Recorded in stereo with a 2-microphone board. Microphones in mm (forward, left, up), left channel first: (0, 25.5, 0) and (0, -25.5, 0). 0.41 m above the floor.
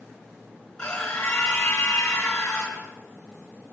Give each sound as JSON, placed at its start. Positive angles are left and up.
{"t": 0.8, "sound": "a scream", "side_deg": 15, "distance_m": 4.5}